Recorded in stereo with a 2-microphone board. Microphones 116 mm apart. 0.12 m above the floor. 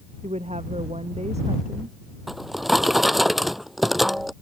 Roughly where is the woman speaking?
Right.